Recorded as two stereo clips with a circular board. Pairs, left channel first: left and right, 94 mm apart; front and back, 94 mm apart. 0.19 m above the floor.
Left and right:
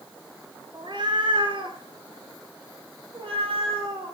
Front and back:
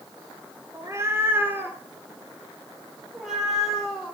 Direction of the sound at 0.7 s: 125° right.